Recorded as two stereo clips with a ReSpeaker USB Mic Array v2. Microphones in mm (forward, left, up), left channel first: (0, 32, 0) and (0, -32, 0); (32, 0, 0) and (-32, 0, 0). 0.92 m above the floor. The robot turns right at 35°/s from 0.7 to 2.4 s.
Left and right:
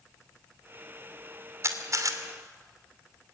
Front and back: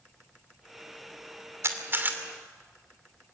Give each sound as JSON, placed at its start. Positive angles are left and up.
{"t": 1.6, "sound": "a camera shutter", "azimuth_deg": -135, "distance_m": 2.5}